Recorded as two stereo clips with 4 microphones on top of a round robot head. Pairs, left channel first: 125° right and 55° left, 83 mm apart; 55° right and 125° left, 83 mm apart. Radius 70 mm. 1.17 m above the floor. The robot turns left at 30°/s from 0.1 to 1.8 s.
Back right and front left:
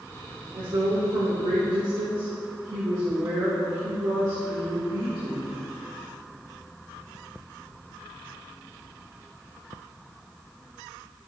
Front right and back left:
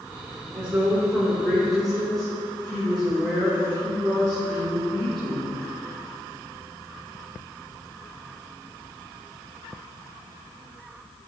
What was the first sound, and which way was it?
A woman speaking, 70° left.